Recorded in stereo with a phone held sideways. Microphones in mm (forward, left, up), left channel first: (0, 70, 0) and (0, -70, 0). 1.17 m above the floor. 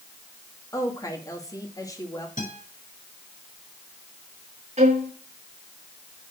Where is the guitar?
65° left (ahead or behind), 6 m.